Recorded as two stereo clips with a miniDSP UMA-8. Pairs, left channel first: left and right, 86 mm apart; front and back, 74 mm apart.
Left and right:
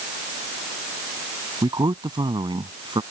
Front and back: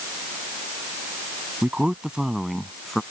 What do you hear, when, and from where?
1.6 s a man speaking: 110° right; by 3.0 s 85° right